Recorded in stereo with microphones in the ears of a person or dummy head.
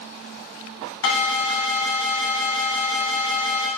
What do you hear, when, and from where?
1.0 s an alarm: 70° left (ahead or behind), 2.5 m